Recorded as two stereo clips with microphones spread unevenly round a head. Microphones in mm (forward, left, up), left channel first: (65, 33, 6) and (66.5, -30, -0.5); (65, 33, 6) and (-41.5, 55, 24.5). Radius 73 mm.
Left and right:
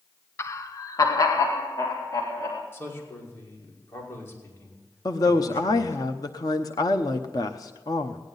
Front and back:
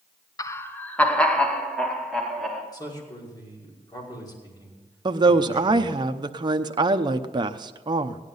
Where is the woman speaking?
125° left, 0.8 m.